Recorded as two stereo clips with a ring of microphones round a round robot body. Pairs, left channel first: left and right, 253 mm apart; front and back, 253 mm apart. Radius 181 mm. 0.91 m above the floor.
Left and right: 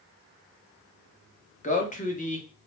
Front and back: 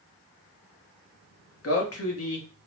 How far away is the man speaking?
About 1.2 m.